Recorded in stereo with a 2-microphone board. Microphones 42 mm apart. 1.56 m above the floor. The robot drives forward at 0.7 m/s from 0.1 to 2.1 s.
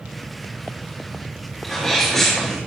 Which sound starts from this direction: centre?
A sneeze, at 1.6 s.